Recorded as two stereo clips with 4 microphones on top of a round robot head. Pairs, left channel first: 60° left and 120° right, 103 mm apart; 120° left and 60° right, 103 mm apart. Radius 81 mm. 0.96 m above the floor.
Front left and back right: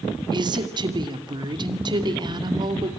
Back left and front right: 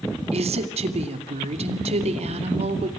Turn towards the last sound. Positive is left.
turn(degrees=-75)